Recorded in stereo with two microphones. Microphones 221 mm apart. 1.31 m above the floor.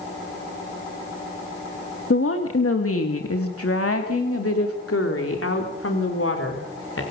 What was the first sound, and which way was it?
A woman speaking, 65° left (ahead or behind).